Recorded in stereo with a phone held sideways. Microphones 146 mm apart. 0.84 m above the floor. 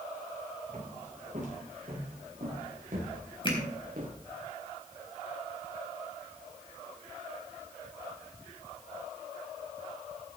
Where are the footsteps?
55° right (ahead or behind), 8 m; by 4.2 s 75° right (ahead or behind), 5.5 m.